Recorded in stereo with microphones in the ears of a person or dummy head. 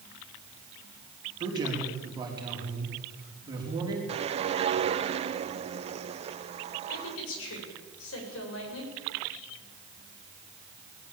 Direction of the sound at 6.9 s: 80° left.